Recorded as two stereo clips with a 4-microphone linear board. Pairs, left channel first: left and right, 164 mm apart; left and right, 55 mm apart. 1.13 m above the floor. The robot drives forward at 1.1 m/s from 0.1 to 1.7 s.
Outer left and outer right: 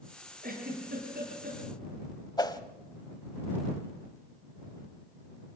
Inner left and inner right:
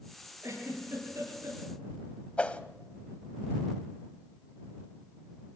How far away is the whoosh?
About 1.0 m.